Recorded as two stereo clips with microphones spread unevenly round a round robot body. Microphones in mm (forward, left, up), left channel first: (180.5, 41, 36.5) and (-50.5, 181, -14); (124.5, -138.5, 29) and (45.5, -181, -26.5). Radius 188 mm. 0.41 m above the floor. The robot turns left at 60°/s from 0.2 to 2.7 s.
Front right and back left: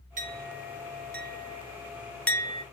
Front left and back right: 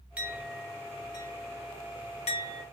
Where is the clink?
170° right, 0.8 m; by 2.6 s 40° left, 0.8 m.